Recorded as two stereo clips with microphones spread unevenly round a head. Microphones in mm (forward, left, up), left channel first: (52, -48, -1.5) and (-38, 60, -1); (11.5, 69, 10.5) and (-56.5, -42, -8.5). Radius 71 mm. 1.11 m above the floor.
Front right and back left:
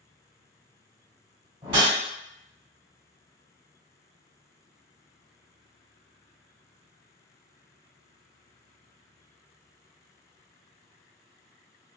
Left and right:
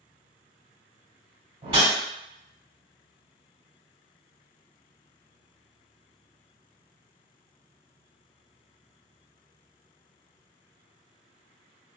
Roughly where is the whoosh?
Behind.